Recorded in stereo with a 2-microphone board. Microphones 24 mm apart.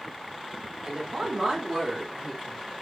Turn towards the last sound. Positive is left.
turn(degrees=10)  # may be behind; listen again after turning